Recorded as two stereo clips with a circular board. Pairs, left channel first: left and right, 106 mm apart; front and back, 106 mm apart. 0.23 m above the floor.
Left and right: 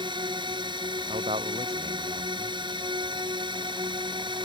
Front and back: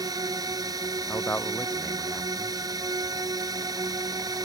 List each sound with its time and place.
0.0 s a drone: 130° right
1.1 s a man speaking: 70° right